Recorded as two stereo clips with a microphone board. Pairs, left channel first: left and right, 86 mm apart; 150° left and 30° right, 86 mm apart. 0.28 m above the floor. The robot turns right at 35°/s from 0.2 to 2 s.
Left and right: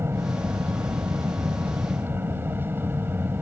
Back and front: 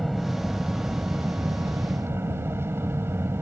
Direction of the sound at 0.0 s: 115° right.